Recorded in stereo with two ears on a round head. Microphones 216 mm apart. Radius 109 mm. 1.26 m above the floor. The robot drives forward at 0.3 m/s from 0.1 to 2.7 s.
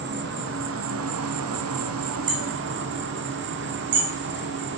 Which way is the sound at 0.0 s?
45° right (ahead or behind).